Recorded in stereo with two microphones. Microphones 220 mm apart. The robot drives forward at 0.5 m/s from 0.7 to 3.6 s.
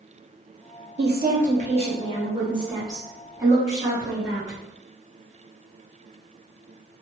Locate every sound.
1.0 s a woman speaking: 50° right (ahead or behind), 0.5 m; by 4.6 s 15° right (ahead or behind), 1.7 m